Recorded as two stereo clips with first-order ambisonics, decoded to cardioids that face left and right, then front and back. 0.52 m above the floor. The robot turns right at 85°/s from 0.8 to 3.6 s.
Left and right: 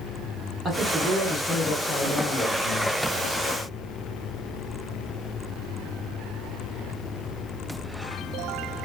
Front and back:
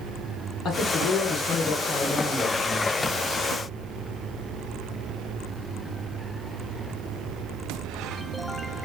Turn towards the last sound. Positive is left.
turn(degrees=-155)